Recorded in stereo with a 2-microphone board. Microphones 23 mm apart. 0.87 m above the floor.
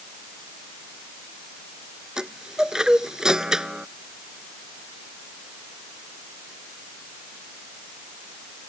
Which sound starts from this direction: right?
A chime, at 2.2 s.